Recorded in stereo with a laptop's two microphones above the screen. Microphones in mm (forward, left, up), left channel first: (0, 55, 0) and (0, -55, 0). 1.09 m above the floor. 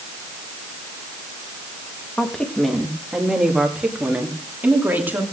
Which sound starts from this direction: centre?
A woman speaking, at 2.2 s.